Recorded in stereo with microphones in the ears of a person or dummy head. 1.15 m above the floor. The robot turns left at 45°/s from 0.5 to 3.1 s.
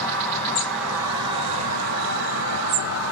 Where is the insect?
15° left, 2.5 m; by 3.1 s 105° right, 2.5 m.